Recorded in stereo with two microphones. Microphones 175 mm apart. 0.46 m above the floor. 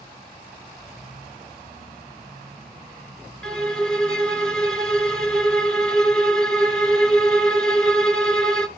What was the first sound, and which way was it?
A violin, 5° left (ahead or behind).